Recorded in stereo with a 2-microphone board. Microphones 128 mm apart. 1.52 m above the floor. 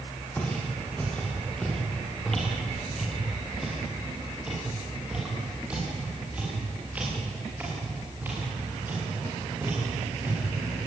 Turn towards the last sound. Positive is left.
turn(degrees=-20)  # may be behind; listen again after turning